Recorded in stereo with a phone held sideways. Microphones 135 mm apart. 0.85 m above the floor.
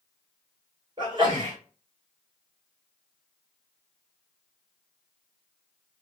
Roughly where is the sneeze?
Right.